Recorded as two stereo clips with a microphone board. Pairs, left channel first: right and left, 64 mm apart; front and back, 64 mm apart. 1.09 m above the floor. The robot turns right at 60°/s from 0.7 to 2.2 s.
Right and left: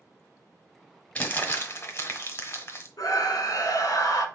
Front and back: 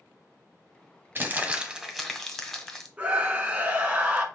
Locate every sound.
1.1 s crumpling: 145° right, 1.0 m; by 2.9 s 85° right, 1.0 m
3.0 s a scream: 115° right, 1.4 m